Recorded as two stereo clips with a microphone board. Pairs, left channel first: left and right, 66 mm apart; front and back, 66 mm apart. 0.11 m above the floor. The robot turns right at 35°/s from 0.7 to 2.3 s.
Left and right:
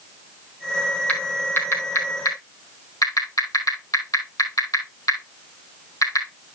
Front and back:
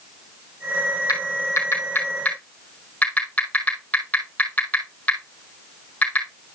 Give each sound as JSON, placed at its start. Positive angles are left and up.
{"t": 1.1, "sound": "typing on a keyboard", "azimuth_deg": 20, "distance_m": 3.0}